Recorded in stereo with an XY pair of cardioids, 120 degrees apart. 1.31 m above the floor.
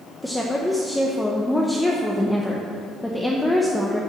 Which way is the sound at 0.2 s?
5° left.